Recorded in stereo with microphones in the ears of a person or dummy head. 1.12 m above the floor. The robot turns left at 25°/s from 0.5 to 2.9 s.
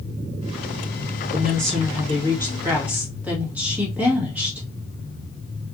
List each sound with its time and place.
1.3 s a woman speaking: 135° right, 1.6 m; by 4.6 s 175° right, 1.6 m